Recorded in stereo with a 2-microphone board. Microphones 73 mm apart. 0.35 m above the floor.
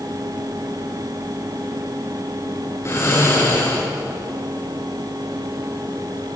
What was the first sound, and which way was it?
Snoring, 40° left (ahead or behind).